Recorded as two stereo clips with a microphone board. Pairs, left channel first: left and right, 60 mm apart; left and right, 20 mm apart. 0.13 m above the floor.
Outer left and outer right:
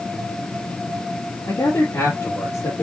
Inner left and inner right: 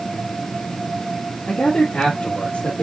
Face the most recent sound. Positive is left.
turn(degrees=70)  # may be behind; listen again after turning